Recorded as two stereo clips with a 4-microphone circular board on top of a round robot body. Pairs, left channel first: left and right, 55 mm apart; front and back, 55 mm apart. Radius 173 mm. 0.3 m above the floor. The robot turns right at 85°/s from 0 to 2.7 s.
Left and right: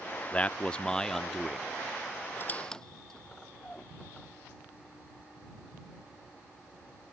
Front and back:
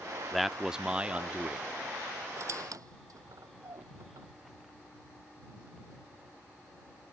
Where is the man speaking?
85° left; by 1.7 s 160° right.